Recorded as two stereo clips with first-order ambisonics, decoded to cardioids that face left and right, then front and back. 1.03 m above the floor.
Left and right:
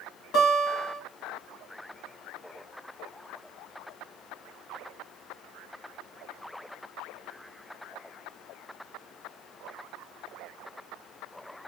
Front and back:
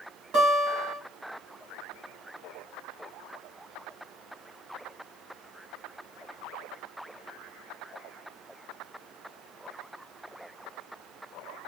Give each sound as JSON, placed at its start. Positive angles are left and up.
{"t": 0.3, "sound": "a guitar", "azimuth_deg": 135, "distance_m": 2.0}